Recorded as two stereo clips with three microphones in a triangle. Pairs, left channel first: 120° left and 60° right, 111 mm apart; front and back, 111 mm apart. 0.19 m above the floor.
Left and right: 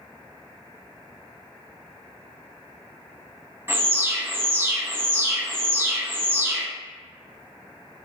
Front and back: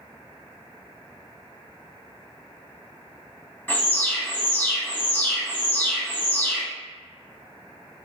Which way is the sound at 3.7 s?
45° right.